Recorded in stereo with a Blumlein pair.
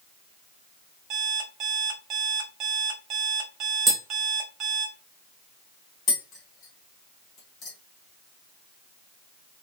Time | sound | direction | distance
1.1 | an alarm clock | 30° right | 1.4 m
3.9 | tapping | 10° right | 0.9 m
6.1 | tapping | 30° left | 1.2 m